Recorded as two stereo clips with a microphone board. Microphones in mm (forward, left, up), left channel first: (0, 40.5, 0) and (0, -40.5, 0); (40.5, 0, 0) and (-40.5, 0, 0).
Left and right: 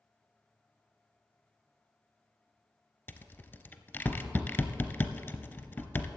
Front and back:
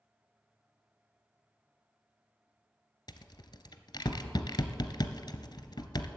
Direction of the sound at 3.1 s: 30° left.